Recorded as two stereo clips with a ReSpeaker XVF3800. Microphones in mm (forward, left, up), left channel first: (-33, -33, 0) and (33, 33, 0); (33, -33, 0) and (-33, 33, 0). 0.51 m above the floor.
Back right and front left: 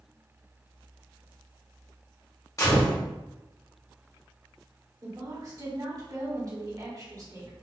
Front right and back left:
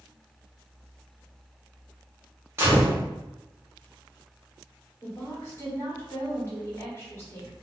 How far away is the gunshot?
About 1.1 m.